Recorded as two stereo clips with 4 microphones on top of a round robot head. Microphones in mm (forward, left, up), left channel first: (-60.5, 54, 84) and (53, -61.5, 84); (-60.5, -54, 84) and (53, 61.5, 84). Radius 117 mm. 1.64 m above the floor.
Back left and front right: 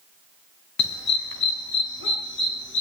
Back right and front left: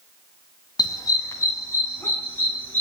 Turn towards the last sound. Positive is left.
turn(degrees=145)